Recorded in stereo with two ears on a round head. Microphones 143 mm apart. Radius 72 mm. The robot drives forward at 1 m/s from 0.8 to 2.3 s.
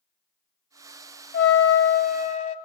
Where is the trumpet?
65° left (ahead or behind), 0.8 m; by 2.5 s 50° left (ahead or behind), 1.0 m.